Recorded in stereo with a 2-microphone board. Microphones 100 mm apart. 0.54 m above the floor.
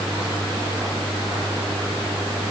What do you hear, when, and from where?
Only background noise.